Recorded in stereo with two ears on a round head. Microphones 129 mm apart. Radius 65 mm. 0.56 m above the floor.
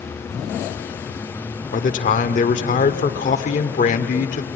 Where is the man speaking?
55° left (ahead or behind), 1.6 m.